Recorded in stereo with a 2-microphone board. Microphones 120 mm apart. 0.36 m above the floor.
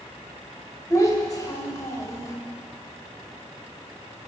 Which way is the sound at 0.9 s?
25° left (ahead or behind).